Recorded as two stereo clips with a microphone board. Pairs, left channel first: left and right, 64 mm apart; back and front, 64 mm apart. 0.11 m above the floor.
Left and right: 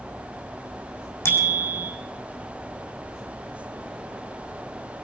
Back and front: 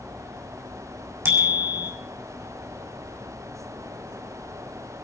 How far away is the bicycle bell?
About 4 m.